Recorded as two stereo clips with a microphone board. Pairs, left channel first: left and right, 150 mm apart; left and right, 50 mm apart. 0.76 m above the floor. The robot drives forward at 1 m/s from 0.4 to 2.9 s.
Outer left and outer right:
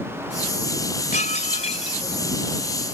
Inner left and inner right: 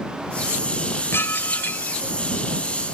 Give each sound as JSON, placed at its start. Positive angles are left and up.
{"t": 1.1, "sound": "dishes clattering", "side_deg": 55}